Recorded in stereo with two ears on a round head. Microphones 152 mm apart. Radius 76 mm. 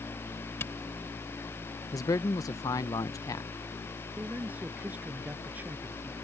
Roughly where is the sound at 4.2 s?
Centre.